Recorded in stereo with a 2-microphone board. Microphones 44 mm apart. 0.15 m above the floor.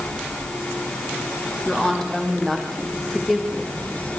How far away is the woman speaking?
About 6 m.